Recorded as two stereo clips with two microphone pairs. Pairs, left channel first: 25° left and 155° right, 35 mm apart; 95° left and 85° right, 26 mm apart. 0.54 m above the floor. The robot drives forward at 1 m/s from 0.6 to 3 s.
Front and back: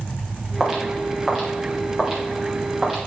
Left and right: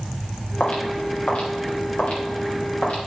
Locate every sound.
0.6 s footsteps: 120° left, 5.5 m; by 3.1 s 125° left, 9 m